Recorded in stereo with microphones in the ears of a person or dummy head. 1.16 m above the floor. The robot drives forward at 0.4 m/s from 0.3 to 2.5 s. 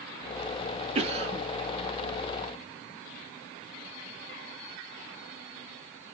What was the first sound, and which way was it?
A cough, 30° right (ahead or behind).